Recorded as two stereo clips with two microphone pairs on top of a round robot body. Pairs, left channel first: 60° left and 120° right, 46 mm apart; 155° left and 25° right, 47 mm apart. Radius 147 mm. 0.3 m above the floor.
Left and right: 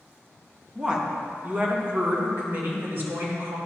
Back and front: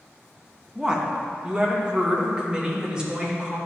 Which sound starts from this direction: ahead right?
A woman speaking, at 0.8 s.